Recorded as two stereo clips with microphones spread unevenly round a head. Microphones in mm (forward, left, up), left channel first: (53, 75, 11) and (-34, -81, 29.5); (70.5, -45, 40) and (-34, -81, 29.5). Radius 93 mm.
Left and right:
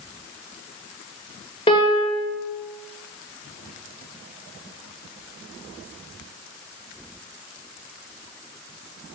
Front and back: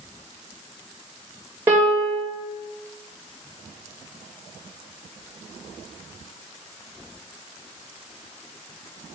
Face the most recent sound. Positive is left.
turn(degrees=120)